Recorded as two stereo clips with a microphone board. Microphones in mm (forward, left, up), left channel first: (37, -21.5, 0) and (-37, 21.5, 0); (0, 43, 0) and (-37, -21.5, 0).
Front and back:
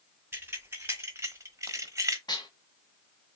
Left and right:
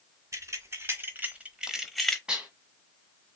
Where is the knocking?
I don't hear knocking.